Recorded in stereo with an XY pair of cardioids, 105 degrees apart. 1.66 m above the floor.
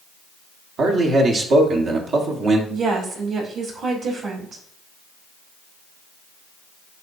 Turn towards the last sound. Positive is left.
turn(degrees=-65)